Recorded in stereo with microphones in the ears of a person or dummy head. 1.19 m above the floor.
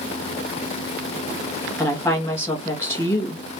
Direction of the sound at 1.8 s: 10° left (ahead or behind).